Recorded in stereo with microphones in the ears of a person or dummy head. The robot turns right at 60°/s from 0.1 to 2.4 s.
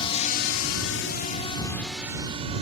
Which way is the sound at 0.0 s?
25° left (ahead or behind).